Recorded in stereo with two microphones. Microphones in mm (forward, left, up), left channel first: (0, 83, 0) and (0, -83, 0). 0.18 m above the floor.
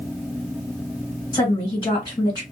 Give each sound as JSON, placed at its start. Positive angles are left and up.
{"t": 1.3, "sound": "a woman speaking", "side_deg": 25, "distance_m": 2.0}